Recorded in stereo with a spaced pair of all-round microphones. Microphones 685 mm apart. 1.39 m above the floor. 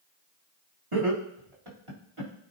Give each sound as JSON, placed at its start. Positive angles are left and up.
{"t": 0.9, "sound": "laughter", "side_deg": -45, "distance_m": 3.0}